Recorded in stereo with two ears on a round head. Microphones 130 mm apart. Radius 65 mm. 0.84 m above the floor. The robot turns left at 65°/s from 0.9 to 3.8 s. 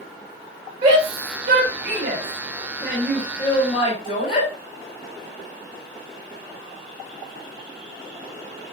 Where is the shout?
30° right (ahead or behind), 6 m; by 4.5 s 35° left (ahead or behind), 6 m.